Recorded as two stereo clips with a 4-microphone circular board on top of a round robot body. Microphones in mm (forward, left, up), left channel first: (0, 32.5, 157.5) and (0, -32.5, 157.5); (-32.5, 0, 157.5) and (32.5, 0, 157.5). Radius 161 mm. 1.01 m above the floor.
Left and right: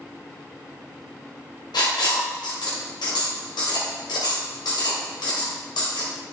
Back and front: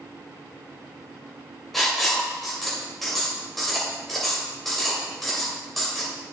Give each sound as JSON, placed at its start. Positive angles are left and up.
{"t": 1.7, "sound": "writing", "azimuth_deg": 90, "distance_m": 2.5}